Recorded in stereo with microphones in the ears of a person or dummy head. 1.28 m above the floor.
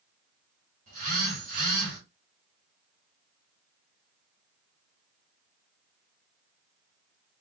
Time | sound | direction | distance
0.9 | a phone buzzing | 50° right (ahead or behind) | 2 m